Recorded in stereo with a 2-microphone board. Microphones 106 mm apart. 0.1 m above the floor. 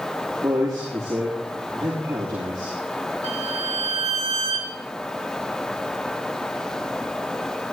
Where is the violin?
75° right (ahead or behind), 2.5 m.